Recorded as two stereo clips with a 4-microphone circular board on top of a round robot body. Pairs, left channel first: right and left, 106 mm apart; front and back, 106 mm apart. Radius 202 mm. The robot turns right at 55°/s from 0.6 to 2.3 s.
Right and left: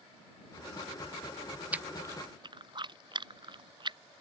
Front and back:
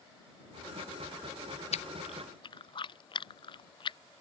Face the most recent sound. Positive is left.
turn(degrees=45)